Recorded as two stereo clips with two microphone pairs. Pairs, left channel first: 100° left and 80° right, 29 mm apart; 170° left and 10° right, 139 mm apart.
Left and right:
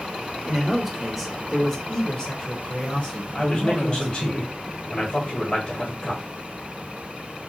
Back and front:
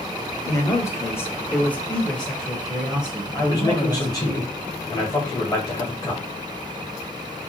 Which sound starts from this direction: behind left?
A man speaking, at 3.3 s.